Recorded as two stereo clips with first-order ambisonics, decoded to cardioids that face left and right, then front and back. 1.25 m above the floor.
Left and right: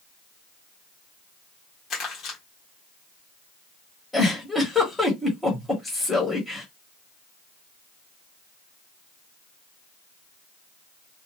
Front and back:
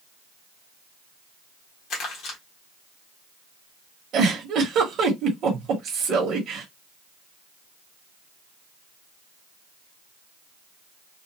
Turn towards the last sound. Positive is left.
turn(degrees=165)